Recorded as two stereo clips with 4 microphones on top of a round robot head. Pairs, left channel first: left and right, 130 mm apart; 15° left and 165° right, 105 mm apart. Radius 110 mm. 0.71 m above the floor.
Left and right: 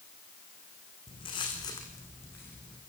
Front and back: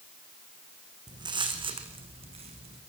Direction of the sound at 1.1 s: 145° left.